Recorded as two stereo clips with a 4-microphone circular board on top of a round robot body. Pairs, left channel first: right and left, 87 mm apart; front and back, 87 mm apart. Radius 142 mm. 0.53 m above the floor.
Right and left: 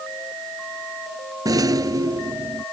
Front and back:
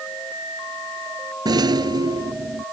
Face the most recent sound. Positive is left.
turn(degrees=140)